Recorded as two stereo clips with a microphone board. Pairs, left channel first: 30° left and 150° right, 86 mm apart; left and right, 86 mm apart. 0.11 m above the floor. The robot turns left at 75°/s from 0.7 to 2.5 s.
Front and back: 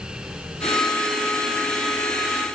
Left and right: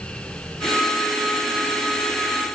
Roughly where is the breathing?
I don't hear breathing.